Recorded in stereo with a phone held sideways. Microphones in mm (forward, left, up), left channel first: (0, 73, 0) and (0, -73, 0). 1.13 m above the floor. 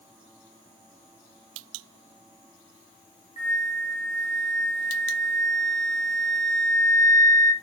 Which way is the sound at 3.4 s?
55° left (ahead or behind).